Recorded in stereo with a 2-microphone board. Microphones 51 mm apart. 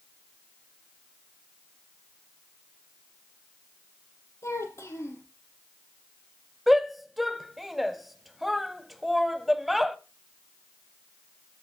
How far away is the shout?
About 1.0 m.